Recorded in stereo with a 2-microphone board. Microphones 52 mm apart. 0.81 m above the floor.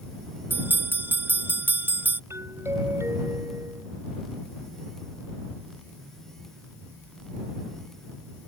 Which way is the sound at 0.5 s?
40° right (ahead or behind).